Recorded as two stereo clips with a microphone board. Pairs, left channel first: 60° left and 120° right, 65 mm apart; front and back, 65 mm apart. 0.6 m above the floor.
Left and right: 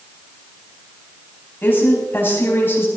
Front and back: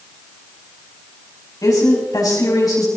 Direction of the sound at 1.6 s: 10° left.